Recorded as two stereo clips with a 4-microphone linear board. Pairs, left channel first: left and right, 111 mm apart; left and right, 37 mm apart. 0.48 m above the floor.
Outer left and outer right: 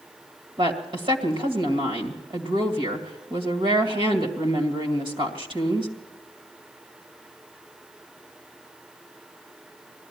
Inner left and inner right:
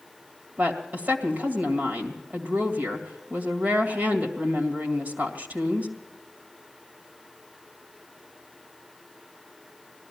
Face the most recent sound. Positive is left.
turn(degrees=-50)  # may be behind; listen again after turning